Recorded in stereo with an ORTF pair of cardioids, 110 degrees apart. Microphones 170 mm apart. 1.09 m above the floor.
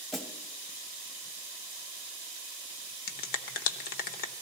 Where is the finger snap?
65° left, 1.0 m.